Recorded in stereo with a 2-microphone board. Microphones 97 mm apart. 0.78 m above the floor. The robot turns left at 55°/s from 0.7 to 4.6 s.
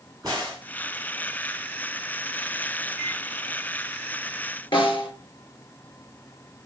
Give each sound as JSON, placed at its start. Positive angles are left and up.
{"t": 0.2, "sound": "a crack", "side_deg": -40, "distance_m": 5.5}
{"t": 3.0, "sound": "a microwave", "side_deg": -10, "distance_m": 3.0}
{"t": 4.7, "sound": "a snare drum", "side_deg": 60, "distance_m": 4.0}